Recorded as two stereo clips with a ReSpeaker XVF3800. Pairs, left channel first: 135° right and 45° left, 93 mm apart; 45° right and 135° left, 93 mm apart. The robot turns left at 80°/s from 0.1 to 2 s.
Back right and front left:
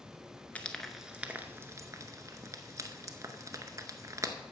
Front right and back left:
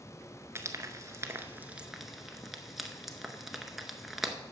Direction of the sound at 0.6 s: 165° left.